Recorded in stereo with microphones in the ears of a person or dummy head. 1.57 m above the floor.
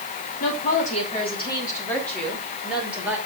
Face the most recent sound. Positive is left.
turn(degrees=-10)  # may be behind; listen again after turning